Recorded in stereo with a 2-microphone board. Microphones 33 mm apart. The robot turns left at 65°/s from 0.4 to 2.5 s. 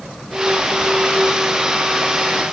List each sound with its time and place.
Only background noise.